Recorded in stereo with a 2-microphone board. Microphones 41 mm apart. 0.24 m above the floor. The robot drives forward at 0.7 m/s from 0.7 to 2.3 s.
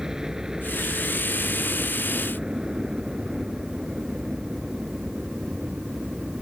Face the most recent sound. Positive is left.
turn(degrees=-20)  # may be behind; listen again after turning